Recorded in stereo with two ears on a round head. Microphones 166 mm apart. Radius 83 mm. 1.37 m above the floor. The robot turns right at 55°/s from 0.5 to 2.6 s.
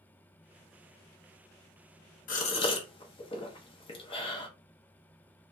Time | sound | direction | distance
2.3 | a gasp | 45° left (ahead or behind) | 0.7 m